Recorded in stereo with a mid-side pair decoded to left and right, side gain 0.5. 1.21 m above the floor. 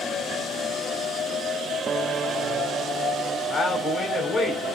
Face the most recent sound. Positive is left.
turn(degrees=40)